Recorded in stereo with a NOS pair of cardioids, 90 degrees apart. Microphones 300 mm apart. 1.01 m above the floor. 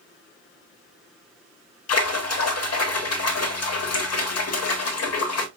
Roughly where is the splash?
Ahead left.